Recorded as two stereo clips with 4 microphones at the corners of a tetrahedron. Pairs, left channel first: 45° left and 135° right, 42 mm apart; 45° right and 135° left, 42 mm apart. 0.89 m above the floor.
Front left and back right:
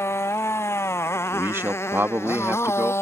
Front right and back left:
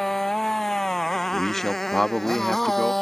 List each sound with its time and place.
0.0 s a motorcycle: 35° left; by 3.0 s 40° left
1.3 s a man speaking: 125° right